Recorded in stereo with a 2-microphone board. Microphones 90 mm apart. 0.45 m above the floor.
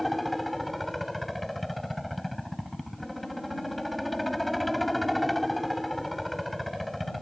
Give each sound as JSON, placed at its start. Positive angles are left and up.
{"t": 0.0, "sound": "a helicopter", "side_deg": 0}